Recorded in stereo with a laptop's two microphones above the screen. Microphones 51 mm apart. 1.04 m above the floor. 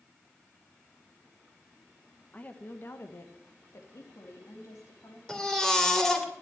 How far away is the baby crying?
About 2.5 m.